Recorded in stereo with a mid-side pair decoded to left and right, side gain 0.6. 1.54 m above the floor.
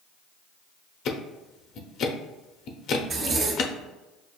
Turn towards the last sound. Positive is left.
turn(degrees=-45)